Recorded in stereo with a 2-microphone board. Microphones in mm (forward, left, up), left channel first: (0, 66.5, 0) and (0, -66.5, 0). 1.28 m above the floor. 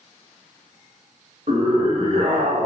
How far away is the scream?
About 1.5 m.